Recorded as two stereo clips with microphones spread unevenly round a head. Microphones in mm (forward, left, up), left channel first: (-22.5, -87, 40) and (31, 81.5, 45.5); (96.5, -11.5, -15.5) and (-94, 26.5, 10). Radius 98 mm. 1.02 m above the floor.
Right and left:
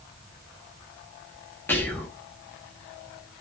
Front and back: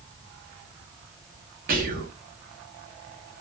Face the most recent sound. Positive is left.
turn(degrees=-175)